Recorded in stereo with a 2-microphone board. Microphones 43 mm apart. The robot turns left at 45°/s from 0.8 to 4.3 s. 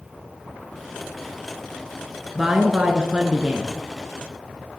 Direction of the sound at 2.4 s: 10° right (ahead or behind).